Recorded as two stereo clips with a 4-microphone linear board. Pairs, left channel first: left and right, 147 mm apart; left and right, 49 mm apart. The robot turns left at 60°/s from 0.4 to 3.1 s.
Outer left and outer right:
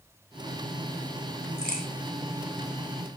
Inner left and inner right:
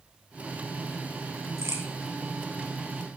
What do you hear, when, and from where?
1.6 s a crack: 75° right (ahead or behind), 2.5 m